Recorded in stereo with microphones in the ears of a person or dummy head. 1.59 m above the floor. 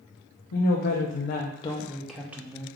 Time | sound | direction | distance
0.5 | a woman speaking | 70° left (ahead or behind) | 0.9 m